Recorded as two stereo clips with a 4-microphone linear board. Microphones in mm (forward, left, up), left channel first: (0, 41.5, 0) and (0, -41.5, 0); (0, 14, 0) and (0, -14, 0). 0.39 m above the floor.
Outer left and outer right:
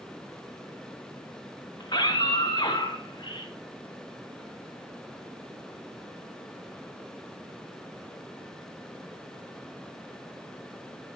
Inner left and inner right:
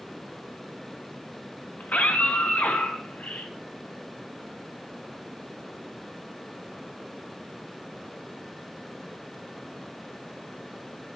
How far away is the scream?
About 3 m.